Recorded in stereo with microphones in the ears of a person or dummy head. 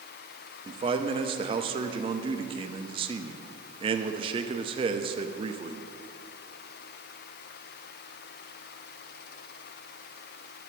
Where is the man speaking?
25° right (ahead or behind), 0.6 m.